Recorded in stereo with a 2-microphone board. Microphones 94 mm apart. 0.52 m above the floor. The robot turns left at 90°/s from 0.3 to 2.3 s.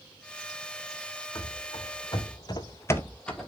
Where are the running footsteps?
55° left (ahead or behind), 1.6 m; by 3.5 s centre (ahead or behind), 1.0 m.